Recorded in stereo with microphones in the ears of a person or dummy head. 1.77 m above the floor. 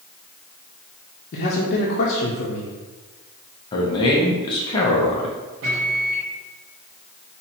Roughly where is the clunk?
No clunk in this recording.